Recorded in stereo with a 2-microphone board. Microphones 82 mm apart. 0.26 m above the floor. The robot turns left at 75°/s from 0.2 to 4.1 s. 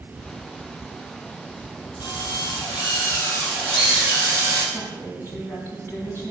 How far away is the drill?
About 4.5 m.